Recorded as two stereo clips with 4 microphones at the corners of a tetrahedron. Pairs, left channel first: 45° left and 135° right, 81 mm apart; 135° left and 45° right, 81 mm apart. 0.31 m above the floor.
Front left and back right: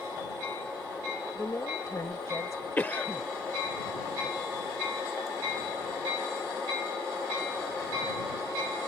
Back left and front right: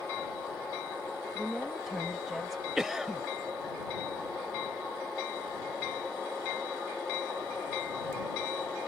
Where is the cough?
40° left.